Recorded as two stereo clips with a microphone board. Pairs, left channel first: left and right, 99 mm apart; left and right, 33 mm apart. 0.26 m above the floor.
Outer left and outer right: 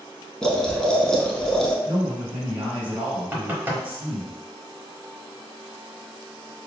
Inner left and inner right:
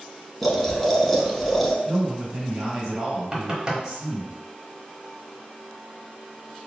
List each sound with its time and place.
0.4 s boiling: 5° left (ahead or behind), 0.7 m
1.9 s a man speaking: 15° right (ahead or behind), 1.0 m
3.3 s knocking: 20° right (ahead or behind), 0.9 m